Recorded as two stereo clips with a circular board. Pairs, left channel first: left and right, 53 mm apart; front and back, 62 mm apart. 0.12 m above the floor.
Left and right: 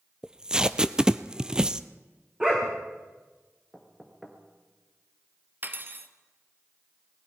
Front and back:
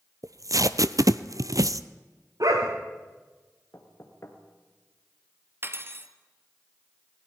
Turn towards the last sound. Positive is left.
turn(degrees=-135)